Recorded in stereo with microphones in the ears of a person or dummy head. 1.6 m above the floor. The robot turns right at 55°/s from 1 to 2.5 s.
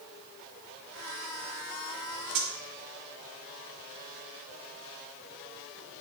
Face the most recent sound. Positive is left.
turn(degrees=-45)  # may be behind; listen again after turning